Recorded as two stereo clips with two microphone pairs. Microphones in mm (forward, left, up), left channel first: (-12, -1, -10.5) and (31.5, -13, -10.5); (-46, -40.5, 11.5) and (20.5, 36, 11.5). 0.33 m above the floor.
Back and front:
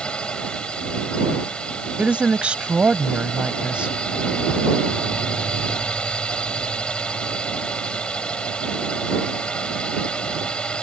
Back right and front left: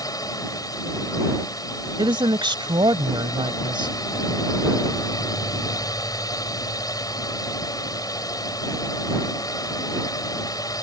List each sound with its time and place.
0.0 s a drone: 140° right
2.0 s a woman speaking: 40° left